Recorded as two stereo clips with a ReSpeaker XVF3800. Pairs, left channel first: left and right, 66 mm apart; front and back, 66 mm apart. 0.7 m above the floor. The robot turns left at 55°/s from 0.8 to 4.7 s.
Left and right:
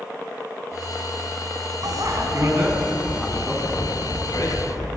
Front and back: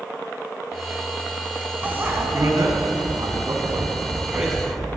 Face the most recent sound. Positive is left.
turn(degrees=90)